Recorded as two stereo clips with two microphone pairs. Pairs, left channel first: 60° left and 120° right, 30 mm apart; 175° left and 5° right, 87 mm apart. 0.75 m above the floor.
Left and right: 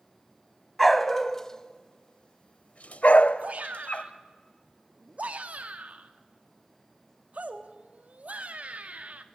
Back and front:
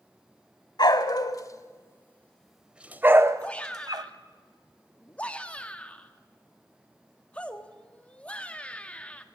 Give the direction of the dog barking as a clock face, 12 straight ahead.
7 o'clock.